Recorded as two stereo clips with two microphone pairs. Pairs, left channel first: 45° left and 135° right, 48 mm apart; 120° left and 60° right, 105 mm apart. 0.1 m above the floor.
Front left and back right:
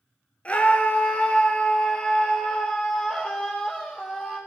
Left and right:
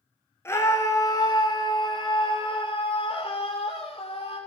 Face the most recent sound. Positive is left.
turn(degrees=120)